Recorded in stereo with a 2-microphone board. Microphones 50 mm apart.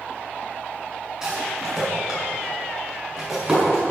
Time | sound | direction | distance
1.2 | a rattle | 15° right (ahead or behind) | 6.5 m